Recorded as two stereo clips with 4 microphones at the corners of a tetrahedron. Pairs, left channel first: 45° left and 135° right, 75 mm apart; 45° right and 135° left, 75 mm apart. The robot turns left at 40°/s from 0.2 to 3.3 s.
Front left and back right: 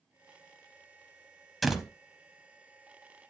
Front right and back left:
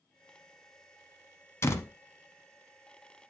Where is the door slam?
45° right, 0.8 m; by 1.9 s 55° right, 0.8 m.